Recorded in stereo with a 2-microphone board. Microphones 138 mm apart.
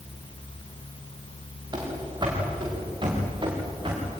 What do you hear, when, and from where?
1.7 s running footsteps: 35° right (ahead or behind), 6.5 m; by 4.1 s 40° right (ahead or behind), 8 m